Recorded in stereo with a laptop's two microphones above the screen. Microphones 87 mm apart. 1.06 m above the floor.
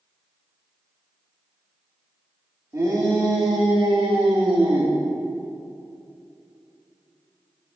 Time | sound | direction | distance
2.7 | a shout | 35° right (ahead or behind) | 3 m